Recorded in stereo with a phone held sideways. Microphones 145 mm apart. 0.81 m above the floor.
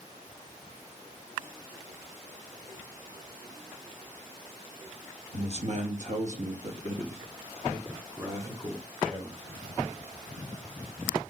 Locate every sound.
5.3 s a man speaking: 45° right (ahead or behind), 0.8 m; by 9.4 s 30° right (ahead or behind), 2 m